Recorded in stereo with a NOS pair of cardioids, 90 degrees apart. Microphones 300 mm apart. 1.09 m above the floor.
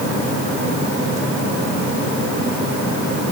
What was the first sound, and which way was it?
Only background noise.